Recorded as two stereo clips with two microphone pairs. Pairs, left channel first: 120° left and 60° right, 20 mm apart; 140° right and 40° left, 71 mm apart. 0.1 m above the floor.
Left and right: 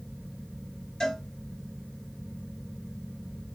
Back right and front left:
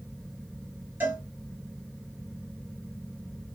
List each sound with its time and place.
1.0 s a cowbell: 85° left, 1.3 m